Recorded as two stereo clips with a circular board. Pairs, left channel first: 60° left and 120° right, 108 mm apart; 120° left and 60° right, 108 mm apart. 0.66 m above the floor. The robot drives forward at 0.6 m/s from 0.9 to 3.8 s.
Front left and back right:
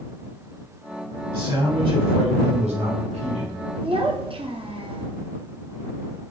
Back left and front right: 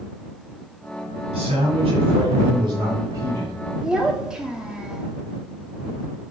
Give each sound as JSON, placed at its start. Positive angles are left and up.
{"t": 1.3, "sound": "a man speaking", "azimuth_deg": -65, "distance_m": 1.5}
{"t": 3.8, "sound": "a child speaking", "azimuth_deg": -145, "distance_m": 0.6}